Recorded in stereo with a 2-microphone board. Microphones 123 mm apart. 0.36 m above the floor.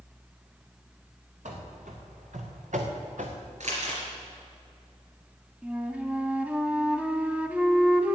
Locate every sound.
1.4 s running footsteps: 80° right, 3 m; by 3.4 s 75° right (ahead or behind), 1.9 m
3.6 s crumpling: 70° right (ahead or behind), 3.5 m
5.6 s a flute: 10° right (ahead or behind), 0.9 m